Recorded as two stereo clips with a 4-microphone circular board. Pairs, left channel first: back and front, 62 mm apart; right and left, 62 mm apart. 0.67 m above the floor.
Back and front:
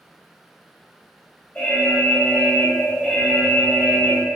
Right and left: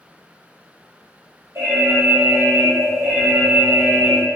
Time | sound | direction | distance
1.6 | an alarm | 115° left | 0.9 m